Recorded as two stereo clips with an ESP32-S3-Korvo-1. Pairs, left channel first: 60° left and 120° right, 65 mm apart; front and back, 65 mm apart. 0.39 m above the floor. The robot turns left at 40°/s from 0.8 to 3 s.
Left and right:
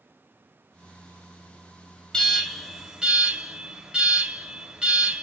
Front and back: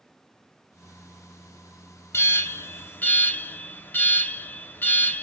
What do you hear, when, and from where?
2.1 s an alarm: 10° right, 0.6 m; by 5.2 s 45° right, 0.6 m